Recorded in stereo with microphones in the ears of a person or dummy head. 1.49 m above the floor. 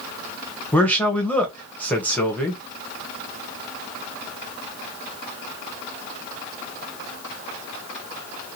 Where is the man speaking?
10° left (ahead or behind), 0.7 m.